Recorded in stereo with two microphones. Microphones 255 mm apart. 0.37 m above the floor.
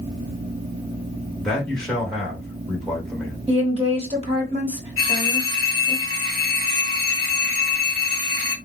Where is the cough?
I don't hear a cough.